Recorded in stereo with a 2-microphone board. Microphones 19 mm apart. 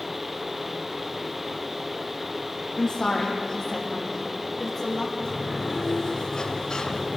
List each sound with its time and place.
2.8 s a woman speaking: 30° left (ahead or behind), 5.5 m; by 5.0 s 15° left (ahead or behind), 8 m
5.2 s a sliding door: 40° left (ahead or behind), 2.5 m